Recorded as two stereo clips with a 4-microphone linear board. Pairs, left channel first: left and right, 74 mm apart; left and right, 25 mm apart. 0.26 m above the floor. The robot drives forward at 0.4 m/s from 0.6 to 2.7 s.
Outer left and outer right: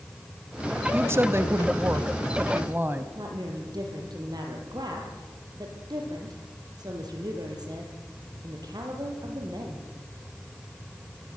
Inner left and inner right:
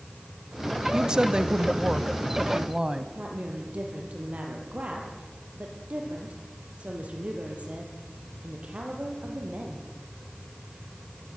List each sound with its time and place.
0.9 s a woman speaking: 35° right (ahead or behind), 1.0 m; by 3.0 s 25° right (ahead or behind), 1.3 m
3.1 s a woman speaking: 65° right (ahead or behind), 6 m